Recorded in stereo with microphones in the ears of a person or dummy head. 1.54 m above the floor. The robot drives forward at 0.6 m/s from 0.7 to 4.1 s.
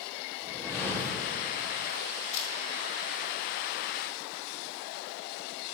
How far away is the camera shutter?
About 5 m.